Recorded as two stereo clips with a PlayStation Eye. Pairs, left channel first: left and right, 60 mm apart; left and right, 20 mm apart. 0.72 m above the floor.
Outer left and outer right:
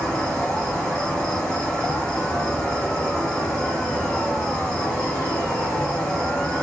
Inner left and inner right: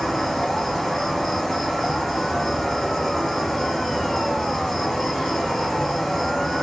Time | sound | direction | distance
0.0 | an insect | 15° left (ahead or behind) | 1.6 m